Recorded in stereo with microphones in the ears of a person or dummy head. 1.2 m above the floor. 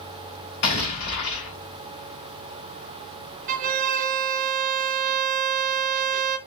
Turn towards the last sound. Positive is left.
turn(degrees=-40)  # may be behind; listen again after turning